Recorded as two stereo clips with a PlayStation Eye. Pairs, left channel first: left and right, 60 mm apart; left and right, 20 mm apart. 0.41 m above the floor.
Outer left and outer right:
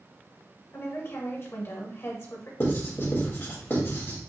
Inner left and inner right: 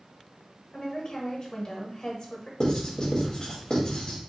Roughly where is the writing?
Left.